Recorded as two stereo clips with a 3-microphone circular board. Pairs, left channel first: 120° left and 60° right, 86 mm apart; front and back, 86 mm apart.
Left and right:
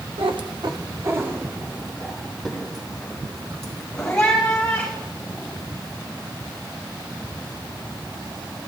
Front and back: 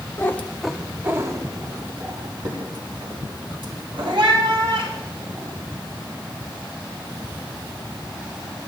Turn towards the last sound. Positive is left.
turn(degrees=-160)